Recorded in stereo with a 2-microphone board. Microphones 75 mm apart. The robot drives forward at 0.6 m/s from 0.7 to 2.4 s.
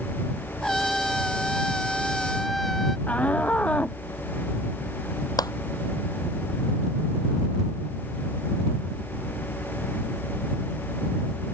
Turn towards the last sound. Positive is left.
turn(degrees=65)  # may be behind; listen again after turning